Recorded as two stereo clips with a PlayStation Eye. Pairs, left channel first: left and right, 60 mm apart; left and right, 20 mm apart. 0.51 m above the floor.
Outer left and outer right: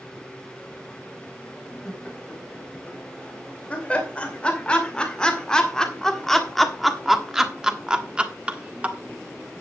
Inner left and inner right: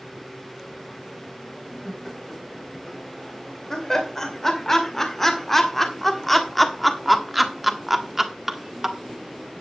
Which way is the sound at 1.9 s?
25° left (ahead or behind).